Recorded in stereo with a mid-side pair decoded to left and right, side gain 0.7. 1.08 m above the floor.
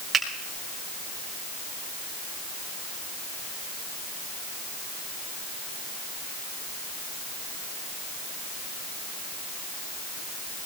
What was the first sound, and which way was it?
A finger snap, 20° right.